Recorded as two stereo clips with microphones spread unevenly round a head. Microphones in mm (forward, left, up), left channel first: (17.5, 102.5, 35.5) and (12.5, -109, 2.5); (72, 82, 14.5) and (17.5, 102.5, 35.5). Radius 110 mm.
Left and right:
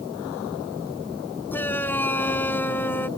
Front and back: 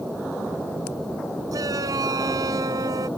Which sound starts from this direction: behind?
A shout, at 1.5 s.